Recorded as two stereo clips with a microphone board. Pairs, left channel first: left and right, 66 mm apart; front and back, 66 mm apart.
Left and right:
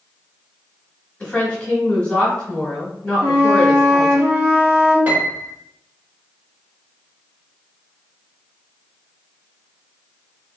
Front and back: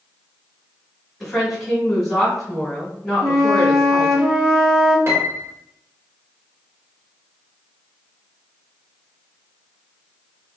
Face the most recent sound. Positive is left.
turn(degrees=-145)